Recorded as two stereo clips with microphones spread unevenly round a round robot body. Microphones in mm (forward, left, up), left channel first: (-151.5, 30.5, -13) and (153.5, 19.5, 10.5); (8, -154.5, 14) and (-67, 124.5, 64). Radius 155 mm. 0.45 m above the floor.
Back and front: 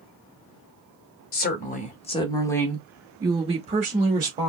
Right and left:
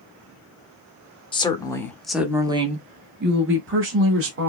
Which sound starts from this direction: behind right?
A woman speaking, at 1.3 s.